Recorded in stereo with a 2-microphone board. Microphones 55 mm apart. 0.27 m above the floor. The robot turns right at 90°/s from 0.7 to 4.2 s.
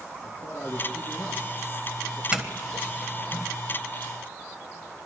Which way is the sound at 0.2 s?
50° left (ahead or behind).